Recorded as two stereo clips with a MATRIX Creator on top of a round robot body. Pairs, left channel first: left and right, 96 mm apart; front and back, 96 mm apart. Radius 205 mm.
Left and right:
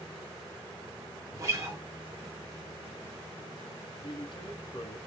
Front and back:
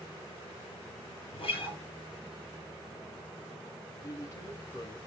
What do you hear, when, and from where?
1.3 s a guitar: 30° right, 4.5 m
4.0 s a man speaking: 55° left, 2.5 m